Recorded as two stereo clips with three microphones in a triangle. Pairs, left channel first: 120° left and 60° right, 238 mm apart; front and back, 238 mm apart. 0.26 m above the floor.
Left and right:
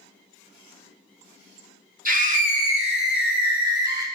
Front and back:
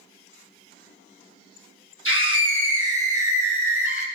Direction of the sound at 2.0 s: 15° right.